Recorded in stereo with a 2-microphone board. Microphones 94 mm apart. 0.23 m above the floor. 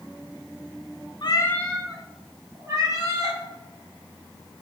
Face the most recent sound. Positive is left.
turn(degrees=-35)  # may be behind; listen again after turning